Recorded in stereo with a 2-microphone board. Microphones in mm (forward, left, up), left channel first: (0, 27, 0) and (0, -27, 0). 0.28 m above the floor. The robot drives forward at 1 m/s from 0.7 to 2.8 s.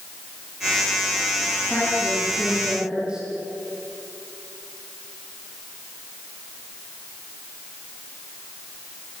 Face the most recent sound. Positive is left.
turn(degrees=-20)  # may be behind; listen again after turning